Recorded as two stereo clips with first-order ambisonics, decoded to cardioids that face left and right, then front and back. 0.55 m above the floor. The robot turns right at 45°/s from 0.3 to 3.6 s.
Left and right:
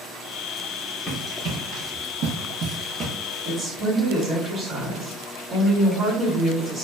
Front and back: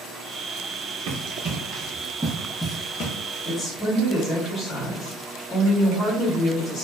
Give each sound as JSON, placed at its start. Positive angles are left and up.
{"t": 1.1, "sound": "running footsteps", "azimuth_deg": 160, "distance_m": 1.0}
{"t": 3.5, "sound": "a woman speaking", "azimuth_deg": -45, "distance_m": 1.5}